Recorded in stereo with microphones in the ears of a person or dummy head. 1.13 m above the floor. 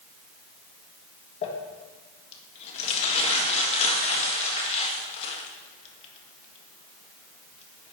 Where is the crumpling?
45° left (ahead or behind), 1.4 m.